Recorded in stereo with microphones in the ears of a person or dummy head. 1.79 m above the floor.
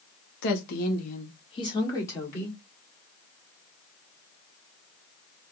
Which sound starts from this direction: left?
A woman speaking, at 0.4 s.